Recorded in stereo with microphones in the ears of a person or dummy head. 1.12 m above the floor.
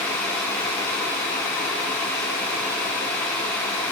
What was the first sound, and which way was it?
Only background noise.